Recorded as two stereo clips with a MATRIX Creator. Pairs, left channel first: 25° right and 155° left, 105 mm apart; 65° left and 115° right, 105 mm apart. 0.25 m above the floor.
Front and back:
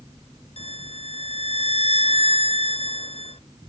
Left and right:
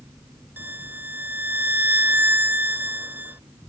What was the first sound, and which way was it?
A violin, 40° right.